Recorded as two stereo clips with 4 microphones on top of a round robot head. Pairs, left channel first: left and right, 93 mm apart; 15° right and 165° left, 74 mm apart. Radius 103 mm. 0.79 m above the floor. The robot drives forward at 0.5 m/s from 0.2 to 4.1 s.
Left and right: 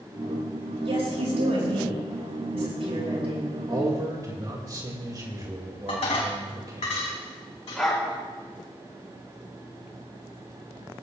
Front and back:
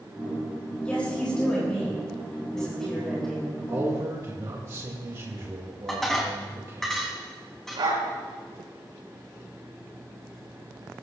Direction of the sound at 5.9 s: 75° left.